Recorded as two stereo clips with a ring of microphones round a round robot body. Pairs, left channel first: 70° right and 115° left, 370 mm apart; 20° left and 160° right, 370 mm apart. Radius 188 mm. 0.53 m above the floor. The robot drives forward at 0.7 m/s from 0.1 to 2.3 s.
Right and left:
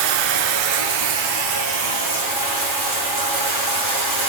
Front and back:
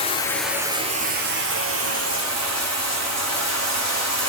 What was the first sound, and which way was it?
Running water, 95° left.